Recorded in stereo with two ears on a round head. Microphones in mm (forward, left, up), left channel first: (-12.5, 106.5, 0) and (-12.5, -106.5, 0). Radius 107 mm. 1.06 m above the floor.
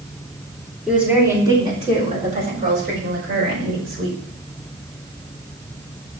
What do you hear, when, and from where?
0.9 s a woman speaking: 5° right (ahead or behind), 3.5 m; by 4.2 s 65° right (ahead or behind), 6 m